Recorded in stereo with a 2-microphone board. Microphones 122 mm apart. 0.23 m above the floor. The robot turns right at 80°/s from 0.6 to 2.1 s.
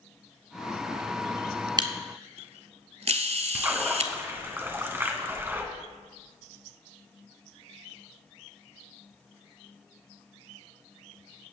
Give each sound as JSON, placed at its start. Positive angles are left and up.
{"t": 1.8, "sound": "a camera shutter", "side_deg": -35, "distance_m": 1.1}
{"t": 3.5, "sound": "a splash", "side_deg": -20, "distance_m": 2.0}